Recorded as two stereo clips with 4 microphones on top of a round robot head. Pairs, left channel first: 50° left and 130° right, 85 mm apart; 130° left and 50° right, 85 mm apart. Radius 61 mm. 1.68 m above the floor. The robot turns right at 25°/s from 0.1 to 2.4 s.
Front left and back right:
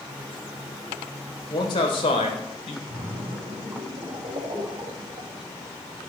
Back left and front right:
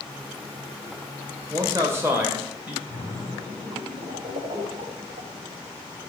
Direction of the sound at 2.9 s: 65° right.